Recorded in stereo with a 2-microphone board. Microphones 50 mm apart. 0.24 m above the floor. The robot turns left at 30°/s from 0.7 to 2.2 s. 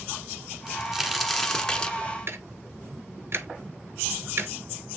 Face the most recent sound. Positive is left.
turn(degrees=-55)  # may be behind; listen again after turning